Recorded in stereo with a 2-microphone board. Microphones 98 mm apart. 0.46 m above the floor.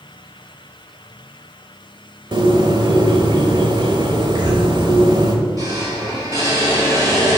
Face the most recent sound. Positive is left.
turn(degrees=-35)  # may be behind; listen again after turning